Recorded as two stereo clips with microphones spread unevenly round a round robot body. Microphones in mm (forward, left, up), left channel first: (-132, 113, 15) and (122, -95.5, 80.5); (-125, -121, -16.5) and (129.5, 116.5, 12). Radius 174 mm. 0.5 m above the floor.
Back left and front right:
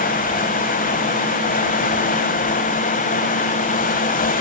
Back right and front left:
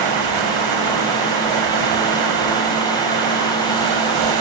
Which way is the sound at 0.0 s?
75° left.